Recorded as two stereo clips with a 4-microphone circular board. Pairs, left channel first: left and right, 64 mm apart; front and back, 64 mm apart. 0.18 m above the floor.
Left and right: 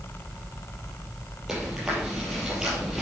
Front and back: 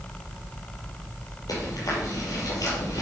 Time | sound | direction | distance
1.5 | chewing | 10° right | 5 m